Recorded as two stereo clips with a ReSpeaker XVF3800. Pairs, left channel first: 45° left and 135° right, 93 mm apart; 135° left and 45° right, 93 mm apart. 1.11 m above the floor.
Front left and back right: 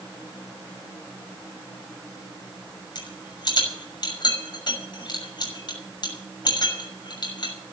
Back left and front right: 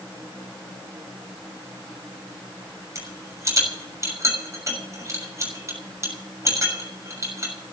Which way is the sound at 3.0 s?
10° left.